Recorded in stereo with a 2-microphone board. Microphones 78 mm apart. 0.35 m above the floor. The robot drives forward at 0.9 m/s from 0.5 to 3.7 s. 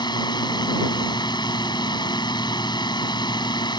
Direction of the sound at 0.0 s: 60° left (ahead or behind).